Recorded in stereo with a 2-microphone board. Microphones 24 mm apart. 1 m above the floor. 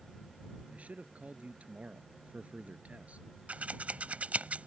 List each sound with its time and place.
0.7 s a man speaking: 85° right
3.5 s scissors: 80° right